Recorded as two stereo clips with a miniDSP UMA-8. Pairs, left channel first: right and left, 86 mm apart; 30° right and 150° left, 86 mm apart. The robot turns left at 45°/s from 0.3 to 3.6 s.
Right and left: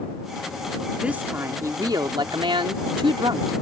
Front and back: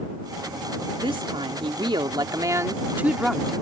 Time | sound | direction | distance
1.0 | a woman speaking | 165° left | ?